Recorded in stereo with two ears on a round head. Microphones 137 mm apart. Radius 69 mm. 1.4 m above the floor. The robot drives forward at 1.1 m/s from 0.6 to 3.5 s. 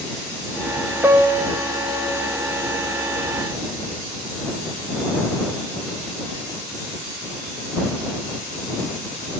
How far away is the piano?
About 0.7 m.